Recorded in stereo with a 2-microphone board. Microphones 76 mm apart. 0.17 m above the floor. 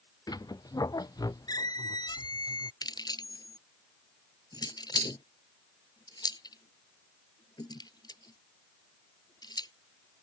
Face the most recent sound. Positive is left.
turn(degrees=60)  # may be behind; listen again after turning